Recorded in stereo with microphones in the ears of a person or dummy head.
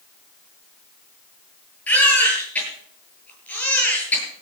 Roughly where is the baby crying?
Centre.